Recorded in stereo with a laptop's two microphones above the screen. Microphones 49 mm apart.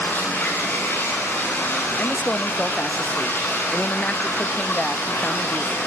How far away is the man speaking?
About 1.3 m.